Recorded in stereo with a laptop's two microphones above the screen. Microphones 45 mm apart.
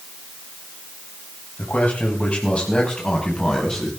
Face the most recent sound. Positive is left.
turn(degrees=15)  # may be behind; listen again after turning